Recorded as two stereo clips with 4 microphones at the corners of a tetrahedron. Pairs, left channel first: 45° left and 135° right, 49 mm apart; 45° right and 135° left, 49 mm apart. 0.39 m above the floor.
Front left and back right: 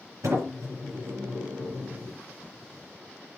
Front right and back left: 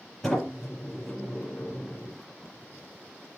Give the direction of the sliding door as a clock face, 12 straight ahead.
4 o'clock.